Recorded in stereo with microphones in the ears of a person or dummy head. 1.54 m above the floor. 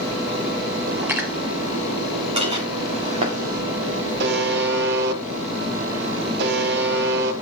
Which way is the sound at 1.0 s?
10° right (ahead or behind).